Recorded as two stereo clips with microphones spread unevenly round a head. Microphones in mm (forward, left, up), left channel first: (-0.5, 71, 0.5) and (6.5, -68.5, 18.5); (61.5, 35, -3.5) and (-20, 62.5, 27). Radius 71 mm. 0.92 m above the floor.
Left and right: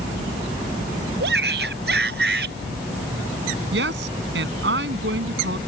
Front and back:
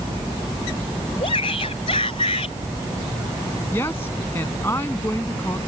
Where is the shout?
70° right.